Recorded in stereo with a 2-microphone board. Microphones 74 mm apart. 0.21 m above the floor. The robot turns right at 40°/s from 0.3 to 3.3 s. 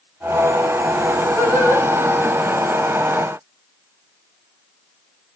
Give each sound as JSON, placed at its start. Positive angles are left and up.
{"t": 1.4, "sound": "singing", "side_deg": 25, "distance_m": 6.5}